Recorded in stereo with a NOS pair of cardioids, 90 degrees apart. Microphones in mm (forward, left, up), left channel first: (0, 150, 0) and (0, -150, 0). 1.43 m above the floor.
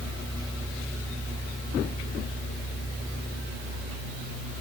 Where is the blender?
I don't hear a blender.